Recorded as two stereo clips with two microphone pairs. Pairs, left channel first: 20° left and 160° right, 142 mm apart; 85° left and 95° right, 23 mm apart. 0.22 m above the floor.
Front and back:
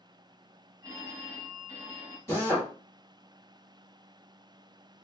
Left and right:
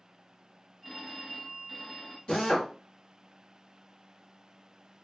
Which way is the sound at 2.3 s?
80° left.